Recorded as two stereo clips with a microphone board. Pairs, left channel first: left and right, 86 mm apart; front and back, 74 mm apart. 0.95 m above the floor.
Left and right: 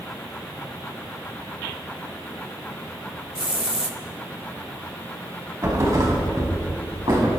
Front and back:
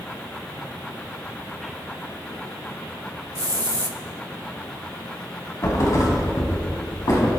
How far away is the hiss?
About 1.0 m.